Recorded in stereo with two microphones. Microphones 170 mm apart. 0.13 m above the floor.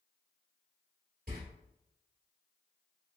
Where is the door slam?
60° right (ahead or behind), 1.7 m.